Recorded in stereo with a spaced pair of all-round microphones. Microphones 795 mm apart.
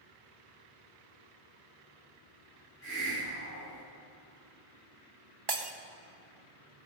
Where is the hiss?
15° left (ahead or behind), 4 m.